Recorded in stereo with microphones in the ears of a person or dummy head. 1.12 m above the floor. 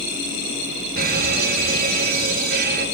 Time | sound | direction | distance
1.0 | a fire alarm | 45° right (ahead or behind) | 2.5 m